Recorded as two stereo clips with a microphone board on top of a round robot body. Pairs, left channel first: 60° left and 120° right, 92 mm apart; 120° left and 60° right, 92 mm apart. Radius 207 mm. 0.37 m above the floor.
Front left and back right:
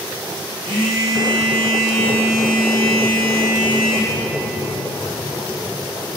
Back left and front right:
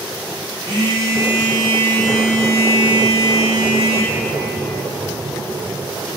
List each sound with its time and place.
0.6 s a phone buzzing: 95° right, 2.0 m